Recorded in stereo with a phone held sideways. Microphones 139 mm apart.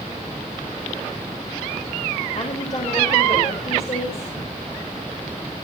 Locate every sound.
2.4 s a woman speaking: 45° left (ahead or behind), 4 m